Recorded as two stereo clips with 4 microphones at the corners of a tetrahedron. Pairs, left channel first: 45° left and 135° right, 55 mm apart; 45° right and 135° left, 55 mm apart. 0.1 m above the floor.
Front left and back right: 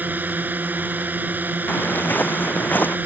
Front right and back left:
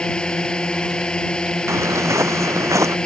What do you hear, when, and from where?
0.0 s a drone: 110° right
1.7 s footsteps: 100° left; by 3.0 s 105° left